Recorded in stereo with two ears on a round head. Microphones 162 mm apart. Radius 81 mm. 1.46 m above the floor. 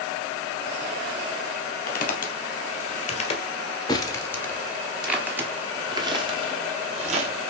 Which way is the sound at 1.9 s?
55° left (ahead or behind).